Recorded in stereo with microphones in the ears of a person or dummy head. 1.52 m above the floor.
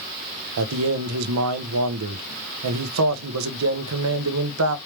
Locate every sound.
0.6 s a man speaking: 85° right, 0.9 m